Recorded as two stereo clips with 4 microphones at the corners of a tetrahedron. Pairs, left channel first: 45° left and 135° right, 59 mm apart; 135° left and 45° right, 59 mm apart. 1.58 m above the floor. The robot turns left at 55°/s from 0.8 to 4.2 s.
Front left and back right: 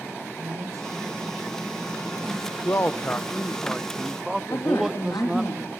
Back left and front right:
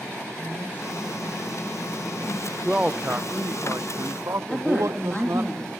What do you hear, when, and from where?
0.4 s a man speaking: 160° right, 8.5 m; by 3.6 s 40° left, 8.5 m
2.6 s a man speaking: 30° left, 0.7 m; by 5.5 s 55° right, 0.7 m
4.5 s a woman speaking: 55° left, 3.5 m